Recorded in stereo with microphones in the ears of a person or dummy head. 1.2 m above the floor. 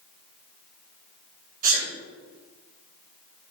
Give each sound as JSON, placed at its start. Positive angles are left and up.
{"t": 1.6, "sound": "a sneeze", "side_deg": -45, "distance_m": 3.0}